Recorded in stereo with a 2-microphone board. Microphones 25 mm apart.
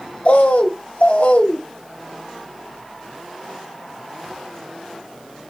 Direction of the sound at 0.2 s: 70° left (ahead or behind).